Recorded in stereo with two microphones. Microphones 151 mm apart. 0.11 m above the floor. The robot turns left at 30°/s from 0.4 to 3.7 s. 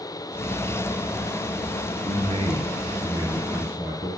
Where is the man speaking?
110° right, 1.6 m; by 4.1 s 160° right, 1.6 m.